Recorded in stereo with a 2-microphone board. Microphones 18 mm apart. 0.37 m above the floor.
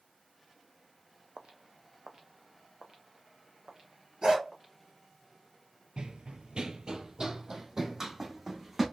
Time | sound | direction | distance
1.4 | footsteps | 60° right (ahead or behind) | 0.7 m
4.2 | a dog barking | 45° right (ahead or behind) | 3.5 m
6.0 | running footsteps | 55° right (ahead or behind) | 0.5 m